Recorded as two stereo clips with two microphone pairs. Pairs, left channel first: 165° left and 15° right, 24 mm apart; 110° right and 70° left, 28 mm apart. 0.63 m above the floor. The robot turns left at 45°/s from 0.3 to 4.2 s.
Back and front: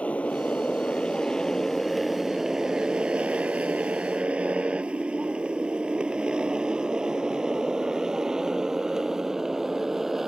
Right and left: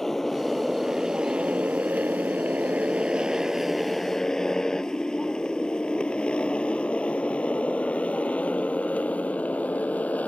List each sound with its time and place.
0.0 s a motorcycle: 170° left; by 10.3 s 85° right